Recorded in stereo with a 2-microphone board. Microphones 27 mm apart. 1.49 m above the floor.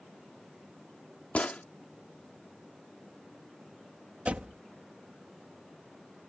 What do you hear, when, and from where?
1.4 s a gunshot: 55° left (ahead or behind)
4.2 s a door slam: 55° right (ahead or behind)